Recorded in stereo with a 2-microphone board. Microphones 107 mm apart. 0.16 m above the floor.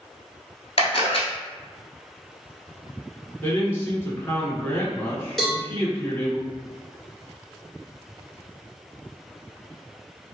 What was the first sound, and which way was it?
A camera shutter, 65° left (ahead or behind).